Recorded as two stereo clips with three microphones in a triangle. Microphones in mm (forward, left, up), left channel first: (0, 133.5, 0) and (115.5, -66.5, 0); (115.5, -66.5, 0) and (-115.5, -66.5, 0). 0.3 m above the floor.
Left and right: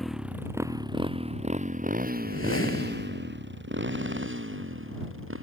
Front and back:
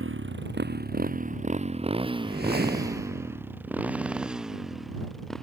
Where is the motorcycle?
150° right; by 5.4 s 90° right.